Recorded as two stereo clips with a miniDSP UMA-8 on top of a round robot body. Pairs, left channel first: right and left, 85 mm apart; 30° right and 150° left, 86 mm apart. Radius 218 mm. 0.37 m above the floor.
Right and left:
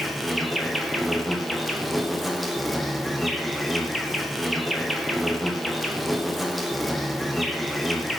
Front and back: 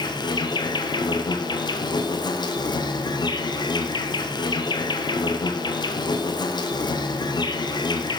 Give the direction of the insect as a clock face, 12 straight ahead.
12 o'clock.